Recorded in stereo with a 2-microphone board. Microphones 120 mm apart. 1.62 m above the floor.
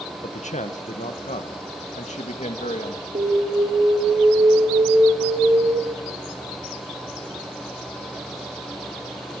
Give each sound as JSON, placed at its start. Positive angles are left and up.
{"t": 0.2, "sound": "a man speaking", "side_deg": 85, "distance_m": 1.6}
{"t": 3.1, "sound": "an alarm", "side_deg": -50, "distance_m": 4.0}